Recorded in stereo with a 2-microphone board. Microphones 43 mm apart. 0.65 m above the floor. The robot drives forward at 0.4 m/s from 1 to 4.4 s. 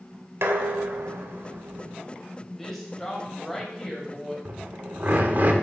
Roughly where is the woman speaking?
Centre.